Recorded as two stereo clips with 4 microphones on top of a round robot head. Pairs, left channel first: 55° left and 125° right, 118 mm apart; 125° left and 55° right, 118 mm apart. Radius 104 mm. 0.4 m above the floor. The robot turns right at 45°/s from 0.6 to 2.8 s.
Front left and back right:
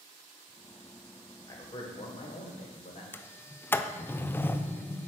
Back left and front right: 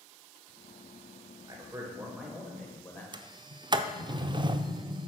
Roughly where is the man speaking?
Ahead.